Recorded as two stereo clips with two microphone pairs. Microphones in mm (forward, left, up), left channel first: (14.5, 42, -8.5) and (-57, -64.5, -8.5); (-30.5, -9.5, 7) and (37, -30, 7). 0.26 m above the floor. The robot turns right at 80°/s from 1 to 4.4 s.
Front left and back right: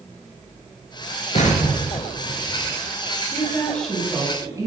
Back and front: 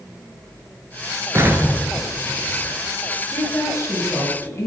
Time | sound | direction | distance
1.4 | an explosion | 25° left | 1.0 m
3.3 | a woman speaking | 100° left | 2.0 m